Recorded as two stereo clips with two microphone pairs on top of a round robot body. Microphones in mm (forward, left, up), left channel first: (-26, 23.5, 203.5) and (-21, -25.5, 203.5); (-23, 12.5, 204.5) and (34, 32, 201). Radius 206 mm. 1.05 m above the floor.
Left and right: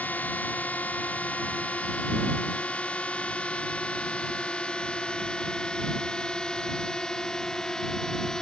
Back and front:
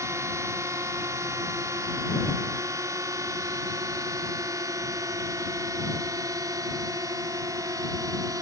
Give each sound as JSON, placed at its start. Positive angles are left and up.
{"t": 0.0, "sound": "a drone", "azimuth_deg": 45}